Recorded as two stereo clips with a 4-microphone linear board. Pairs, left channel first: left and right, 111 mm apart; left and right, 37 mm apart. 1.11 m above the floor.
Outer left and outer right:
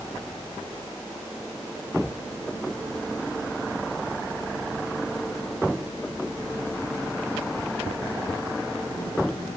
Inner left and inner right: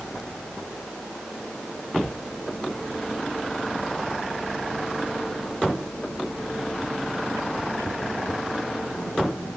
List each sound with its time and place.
Only background noise.